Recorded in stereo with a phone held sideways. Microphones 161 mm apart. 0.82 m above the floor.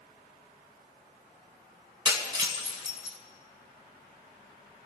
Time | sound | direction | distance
2.0 | breaking glass | 25° right (ahead or behind) | 2.5 m